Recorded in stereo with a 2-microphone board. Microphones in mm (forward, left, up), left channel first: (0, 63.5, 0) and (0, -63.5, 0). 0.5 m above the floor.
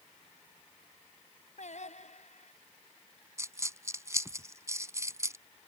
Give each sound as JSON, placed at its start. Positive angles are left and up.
{"t": 1.6, "sound": "singing", "side_deg": 70}
{"t": 3.4, "sound": "a dropped coin", "side_deg": -25}